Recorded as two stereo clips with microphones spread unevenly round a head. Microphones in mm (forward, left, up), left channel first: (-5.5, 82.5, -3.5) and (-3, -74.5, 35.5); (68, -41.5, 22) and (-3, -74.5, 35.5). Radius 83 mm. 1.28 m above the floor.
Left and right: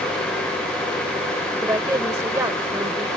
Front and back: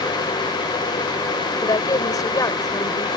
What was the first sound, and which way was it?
A woman speaking, 15° right.